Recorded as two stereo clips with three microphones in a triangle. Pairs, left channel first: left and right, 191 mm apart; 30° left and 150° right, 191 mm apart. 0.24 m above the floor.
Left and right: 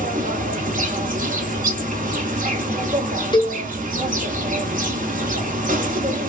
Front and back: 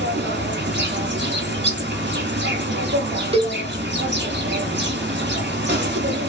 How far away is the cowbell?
About 0.8 m.